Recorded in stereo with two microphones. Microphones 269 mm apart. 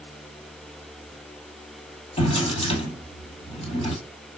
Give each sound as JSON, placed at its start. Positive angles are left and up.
{"t": 2.2, "sound": "a drawer", "side_deg": 20, "distance_m": 1.6}